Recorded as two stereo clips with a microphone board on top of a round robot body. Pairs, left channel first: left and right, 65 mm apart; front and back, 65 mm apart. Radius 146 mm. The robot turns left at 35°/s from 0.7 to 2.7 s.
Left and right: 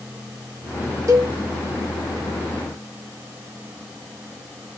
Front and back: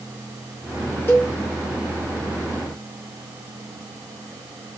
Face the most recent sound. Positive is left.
turn(degrees=-110)